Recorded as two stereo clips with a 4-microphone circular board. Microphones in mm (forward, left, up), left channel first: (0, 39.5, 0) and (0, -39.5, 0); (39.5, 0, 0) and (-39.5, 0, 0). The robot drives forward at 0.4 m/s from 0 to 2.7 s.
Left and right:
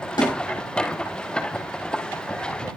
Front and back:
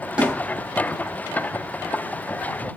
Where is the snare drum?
105° left, 4 m.